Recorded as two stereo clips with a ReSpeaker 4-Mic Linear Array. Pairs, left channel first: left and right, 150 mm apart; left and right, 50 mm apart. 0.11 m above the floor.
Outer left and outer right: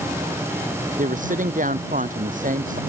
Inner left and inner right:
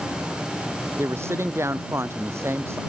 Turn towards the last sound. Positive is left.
turn(degrees=-65)  # may be behind; listen again after turning